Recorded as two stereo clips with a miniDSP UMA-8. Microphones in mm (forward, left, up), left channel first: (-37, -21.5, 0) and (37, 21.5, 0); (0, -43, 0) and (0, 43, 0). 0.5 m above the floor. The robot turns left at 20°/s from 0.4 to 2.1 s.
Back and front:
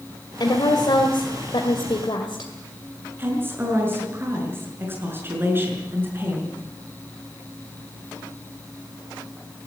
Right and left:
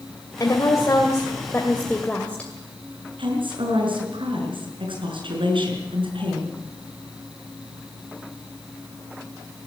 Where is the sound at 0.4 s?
130° right, 2 m; by 2.5 s 165° right, 2 m.